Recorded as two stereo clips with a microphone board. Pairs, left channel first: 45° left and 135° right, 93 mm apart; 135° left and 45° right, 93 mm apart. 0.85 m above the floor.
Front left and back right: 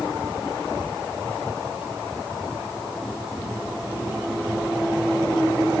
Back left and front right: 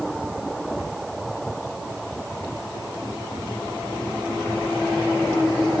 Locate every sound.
Only background noise.